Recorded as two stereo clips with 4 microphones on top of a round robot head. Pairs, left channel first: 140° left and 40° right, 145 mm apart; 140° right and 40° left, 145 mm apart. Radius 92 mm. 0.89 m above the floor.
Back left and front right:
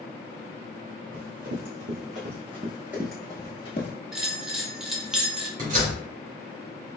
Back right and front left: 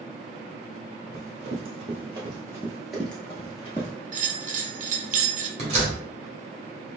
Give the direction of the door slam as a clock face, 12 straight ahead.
12 o'clock.